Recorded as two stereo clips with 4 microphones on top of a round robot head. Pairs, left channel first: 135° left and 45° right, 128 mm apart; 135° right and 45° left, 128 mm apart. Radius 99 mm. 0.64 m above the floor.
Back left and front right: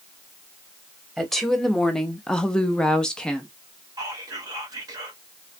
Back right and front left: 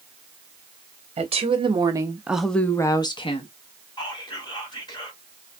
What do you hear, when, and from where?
1.2 s a woman speaking: 50° left, 1.0 m; by 3.5 s 140° right, 1.0 m
4.0 s whispering: 95° right, 1.6 m